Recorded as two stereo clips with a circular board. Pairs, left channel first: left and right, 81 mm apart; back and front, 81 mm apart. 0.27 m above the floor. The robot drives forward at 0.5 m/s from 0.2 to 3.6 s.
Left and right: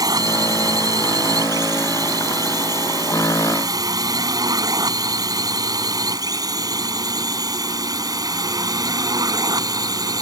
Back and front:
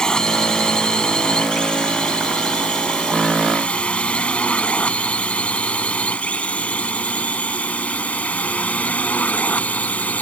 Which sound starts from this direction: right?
A drone, at 0.0 s.